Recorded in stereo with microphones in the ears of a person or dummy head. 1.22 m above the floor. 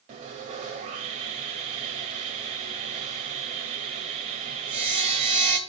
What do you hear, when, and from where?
0.1 s sawing: 40° right (ahead or behind), 1.3 m